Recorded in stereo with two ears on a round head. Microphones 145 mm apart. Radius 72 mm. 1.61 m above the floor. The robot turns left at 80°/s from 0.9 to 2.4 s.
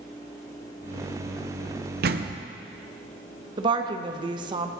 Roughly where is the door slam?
Right.